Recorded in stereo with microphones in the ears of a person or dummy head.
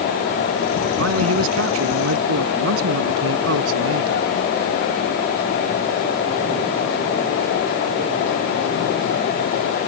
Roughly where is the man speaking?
Right.